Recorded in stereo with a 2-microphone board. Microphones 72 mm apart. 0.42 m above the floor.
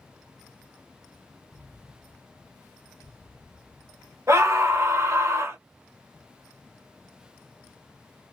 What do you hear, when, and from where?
1.5 s an explosion: 70° right (ahead or behind), 1.4 m
4.3 s a scream: 45° right (ahead or behind), 2 m